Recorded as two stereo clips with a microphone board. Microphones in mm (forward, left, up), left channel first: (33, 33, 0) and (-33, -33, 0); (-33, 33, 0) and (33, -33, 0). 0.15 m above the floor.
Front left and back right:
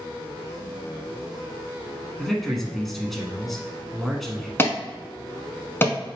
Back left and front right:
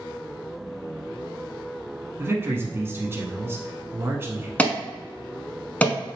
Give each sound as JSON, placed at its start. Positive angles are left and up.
{"t": 2.2, "sound": "a man speaking", "azimuth_deg": -40, "distance_m": 1.1}
{"t": 4.6, "sound": "an alarm", "azimuth_deg": 75, "distance_m": 0.9}